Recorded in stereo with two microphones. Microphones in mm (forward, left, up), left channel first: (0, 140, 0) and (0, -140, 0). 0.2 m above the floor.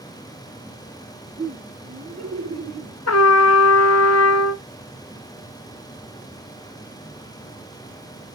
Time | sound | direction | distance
1.4 | laughter | 60° right (ahead or behind) | 3 m
3.1 | a trumpet | 65° left (ahead or behind) | 0.5 m